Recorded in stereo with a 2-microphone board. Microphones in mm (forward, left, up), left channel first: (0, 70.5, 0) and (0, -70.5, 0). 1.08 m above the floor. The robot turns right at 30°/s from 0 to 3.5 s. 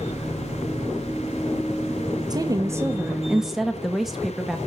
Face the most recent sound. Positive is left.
turn(degrees=-5)